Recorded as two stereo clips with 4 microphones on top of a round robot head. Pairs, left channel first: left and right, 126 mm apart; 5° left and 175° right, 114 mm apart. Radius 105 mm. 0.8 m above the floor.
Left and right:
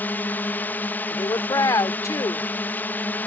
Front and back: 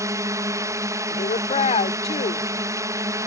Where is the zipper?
I don't hear a zipper.